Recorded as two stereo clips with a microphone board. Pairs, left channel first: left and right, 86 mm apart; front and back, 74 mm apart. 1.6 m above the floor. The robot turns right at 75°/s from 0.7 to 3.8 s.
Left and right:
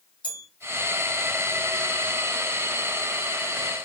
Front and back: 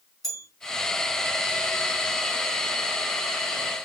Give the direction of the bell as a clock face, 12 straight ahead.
9 o'clock.